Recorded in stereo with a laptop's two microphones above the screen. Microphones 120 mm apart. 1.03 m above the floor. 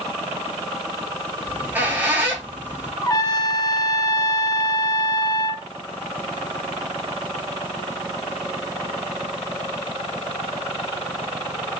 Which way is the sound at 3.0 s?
30° left (ahead or behind).